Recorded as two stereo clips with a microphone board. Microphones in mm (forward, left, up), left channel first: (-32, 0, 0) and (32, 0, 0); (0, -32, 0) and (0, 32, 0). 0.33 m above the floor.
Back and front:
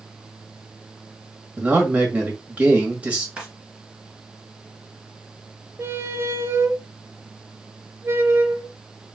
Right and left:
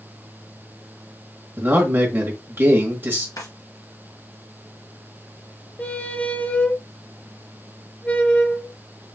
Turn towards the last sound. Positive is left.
turn(degrees=-25)